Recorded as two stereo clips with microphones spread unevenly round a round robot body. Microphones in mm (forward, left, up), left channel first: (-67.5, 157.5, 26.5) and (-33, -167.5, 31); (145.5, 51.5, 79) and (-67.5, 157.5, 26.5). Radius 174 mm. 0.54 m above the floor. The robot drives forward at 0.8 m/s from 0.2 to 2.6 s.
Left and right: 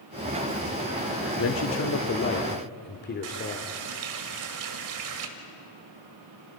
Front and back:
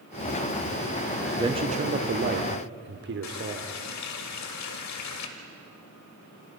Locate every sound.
1.4 s a man speaking: 105° left, 1.1 m; by 3.7 s 150° left, 1.6 m
3.2 s a running tap: 45° right, 1.7 m